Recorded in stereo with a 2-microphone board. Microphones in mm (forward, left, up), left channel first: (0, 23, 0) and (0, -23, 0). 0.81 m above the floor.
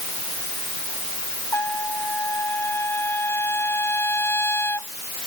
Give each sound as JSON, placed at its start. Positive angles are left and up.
{"t": 1.5, "sound": "a trumpet", "side_deg": 60}